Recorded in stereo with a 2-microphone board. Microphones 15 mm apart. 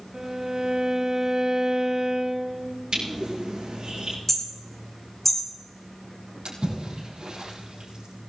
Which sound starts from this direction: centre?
Hammering, at 4.3 s.